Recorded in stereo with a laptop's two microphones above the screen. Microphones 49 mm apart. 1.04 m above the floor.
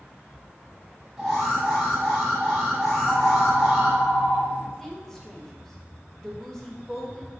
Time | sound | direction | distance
1.2 | an alarm | 5° right (ahead or behind) | 1.1 m
2.9 | a phone ringing | 25° left (ahead or behind) | 0.7 m
4.8 | a woman speaking | 10° left (ahead or behind) | 0.8 m